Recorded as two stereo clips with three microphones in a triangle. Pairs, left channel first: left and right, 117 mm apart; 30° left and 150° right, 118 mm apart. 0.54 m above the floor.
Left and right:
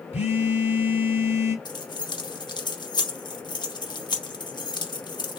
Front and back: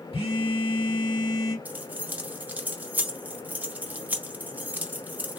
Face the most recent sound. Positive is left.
turn(degrees=135)